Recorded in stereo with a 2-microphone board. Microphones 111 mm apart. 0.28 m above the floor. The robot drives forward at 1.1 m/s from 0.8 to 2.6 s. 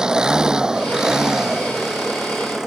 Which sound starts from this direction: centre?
An engine running, at 0.0 s.